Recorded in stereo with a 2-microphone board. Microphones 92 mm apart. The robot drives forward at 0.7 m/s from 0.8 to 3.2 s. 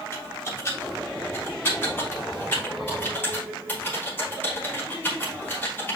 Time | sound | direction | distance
0.1 | typing on a keyboard | 30° left (ahead or behind) | 4 m